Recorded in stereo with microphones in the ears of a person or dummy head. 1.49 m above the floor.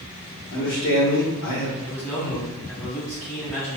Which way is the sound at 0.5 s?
60° left (ahead or behind).